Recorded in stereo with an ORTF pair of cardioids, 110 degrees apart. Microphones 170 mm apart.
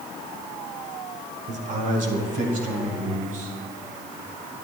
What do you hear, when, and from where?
1.5 s a man speaking: 50° right, 1.2 m; by 3.6 s 55° right, 3.5 m